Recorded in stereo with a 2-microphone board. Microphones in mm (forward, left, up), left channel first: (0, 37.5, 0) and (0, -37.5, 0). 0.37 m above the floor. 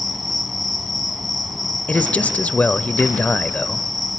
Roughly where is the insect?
Centre.